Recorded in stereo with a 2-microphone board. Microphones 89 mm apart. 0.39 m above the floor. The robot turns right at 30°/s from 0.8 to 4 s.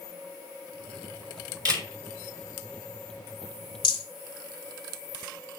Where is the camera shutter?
50° right (ahead or behind), 1.6 m; by 1.9 s 45° right (ahead or behind), 1.6 m.